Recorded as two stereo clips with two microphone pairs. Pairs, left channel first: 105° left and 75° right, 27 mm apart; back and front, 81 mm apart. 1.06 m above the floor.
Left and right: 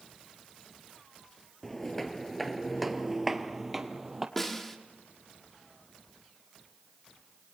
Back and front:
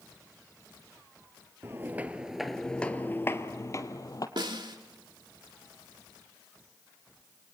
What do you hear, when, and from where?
1.6 s footsteps: 35° left, 1.2 m; by 4.3 s 150° right, 1.8 m
4.4 s a snare drum: 30° left, 1.9 m